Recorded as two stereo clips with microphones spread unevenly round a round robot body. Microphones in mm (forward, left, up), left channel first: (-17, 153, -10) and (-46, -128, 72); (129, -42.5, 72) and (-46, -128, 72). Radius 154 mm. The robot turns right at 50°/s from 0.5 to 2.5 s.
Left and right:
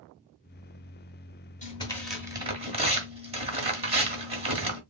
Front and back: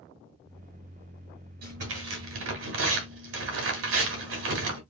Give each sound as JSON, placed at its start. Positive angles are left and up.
{"t": 1.6, "sound": "tearing paper", "azimuth_deg": 150, "distance_m": 2.0}